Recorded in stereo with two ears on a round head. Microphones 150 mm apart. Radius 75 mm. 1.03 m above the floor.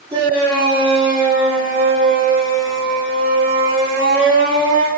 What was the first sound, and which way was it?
A shout, 20° right (ahead or behind).